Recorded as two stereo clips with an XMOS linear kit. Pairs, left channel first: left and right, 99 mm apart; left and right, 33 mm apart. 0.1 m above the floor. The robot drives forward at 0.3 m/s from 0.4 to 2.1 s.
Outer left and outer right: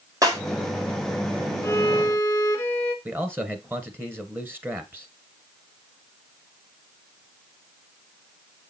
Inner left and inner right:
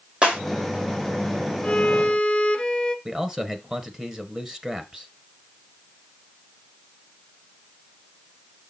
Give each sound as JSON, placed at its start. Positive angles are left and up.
{"t": 0.2, "sound": "breaking glass", "side_deg": -35, "distance_m": 2.0}
{"t": 1.6, "sound": "a violin", "side_deg": 25, "distance_m": 1.0}
{"t": 3.0, "sound": "a man speaking", "side_deg": -20, "distance_m": 1.2}